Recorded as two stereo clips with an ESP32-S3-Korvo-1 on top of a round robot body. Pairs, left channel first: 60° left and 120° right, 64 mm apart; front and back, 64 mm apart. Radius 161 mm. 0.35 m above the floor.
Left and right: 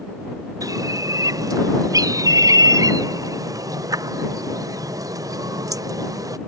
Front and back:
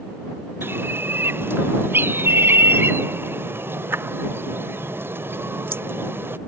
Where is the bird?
130° right.